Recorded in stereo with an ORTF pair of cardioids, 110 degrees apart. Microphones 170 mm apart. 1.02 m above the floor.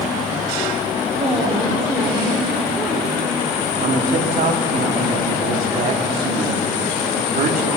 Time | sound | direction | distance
1.1 | a woman speaking | 25° right | 2.5 m
3.8 | a man speaking | 55° right | 2.5 m